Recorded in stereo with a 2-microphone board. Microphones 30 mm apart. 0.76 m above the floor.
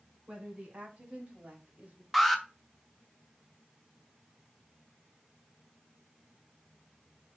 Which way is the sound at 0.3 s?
40° right (ahead or behind).